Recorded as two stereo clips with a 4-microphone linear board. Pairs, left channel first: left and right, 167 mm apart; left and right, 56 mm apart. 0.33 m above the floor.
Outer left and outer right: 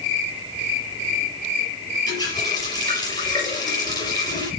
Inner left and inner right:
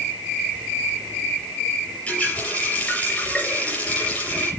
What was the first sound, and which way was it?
A running tap, 25° left (ahead or behind).